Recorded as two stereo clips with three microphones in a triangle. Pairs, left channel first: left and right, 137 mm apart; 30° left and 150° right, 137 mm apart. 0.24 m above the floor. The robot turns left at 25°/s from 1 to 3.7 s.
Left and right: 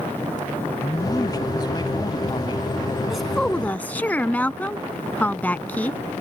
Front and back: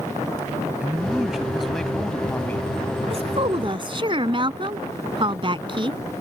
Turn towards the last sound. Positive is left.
turn(degrees=165)